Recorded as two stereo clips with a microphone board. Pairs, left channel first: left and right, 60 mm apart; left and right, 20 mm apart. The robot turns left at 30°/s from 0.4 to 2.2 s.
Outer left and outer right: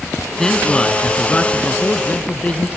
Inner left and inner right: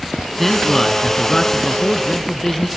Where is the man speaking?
10° left (ahead or behind), 1.2 m; by 2.7 s 25° left (ahead or behind), 1.2 m.